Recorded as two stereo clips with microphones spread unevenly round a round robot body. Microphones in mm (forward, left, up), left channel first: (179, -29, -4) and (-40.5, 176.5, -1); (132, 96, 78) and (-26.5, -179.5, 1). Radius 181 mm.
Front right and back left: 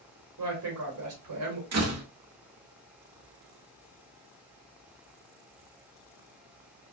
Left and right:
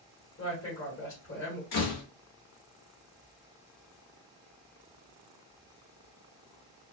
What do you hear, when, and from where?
0.4 s a woman speaking: 120° left, 1.3 m
1.7 s a door slam: 95° left, 0.9 m